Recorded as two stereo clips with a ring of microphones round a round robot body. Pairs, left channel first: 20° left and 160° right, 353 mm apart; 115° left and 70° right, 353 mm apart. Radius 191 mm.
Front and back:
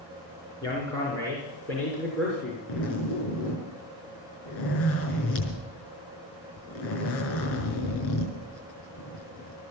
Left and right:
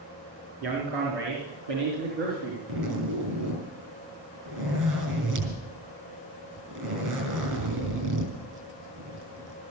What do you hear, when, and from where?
0.6 s a man speaking: 55° right, 4.5 m; by 2.6 s 65° right, 5.5 m
2.7 s a zipper: 30° right, 6 m